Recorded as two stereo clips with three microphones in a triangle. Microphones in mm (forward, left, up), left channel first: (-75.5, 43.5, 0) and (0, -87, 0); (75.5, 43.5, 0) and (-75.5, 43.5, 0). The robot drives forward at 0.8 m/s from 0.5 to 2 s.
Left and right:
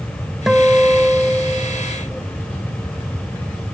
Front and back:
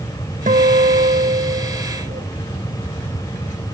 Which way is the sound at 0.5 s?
150° right.